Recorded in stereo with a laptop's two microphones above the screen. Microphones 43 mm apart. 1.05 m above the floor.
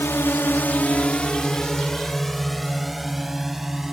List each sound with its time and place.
0.0 s a drone: 75° left (ahead or behind); by 3.9 s 5° right (ahead or behind)